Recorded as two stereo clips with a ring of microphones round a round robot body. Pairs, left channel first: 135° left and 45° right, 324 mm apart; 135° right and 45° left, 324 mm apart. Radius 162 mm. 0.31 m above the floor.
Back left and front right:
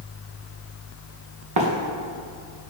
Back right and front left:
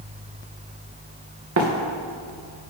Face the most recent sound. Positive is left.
turn(degrees=-5)